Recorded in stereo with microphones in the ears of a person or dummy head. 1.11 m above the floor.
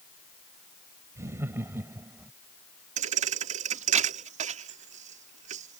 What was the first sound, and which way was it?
Laughter, 15° right (ahead or behind).